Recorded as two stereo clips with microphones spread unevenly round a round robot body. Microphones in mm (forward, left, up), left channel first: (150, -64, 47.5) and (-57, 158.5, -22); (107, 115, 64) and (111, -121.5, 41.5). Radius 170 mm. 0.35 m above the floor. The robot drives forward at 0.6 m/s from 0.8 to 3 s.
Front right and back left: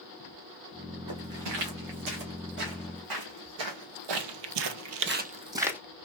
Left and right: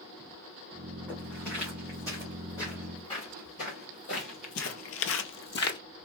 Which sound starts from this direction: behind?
Footsteps, at 1.1 s.